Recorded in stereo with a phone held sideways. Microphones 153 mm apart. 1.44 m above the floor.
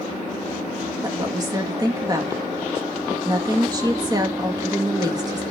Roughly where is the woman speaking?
Right.